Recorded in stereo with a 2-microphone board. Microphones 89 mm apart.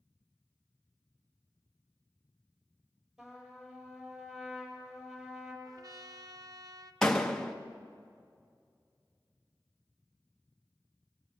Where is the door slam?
5° left (ahead or behind), 1.2 m.